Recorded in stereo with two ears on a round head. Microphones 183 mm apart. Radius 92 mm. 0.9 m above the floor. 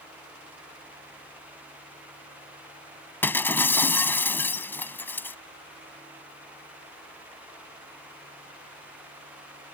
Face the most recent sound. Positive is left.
turn(degrees=10)  # may be behind; listen again after turning